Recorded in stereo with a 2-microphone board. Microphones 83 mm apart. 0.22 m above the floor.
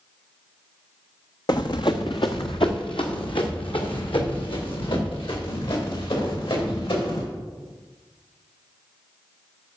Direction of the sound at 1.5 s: 55° left (ahead or behind).